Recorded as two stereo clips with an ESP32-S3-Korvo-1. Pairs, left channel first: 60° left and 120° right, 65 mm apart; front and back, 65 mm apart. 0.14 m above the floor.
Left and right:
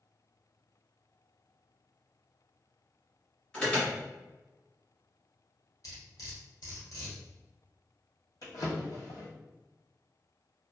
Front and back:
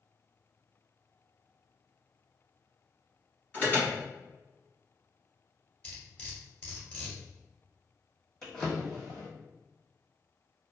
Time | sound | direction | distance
3.5 | an alarm | 15° left | 1.7 m
5.8 | cutlery clinking | 65° left | 1.6 m
8.4 | a drawer | 80° left | 1.3 m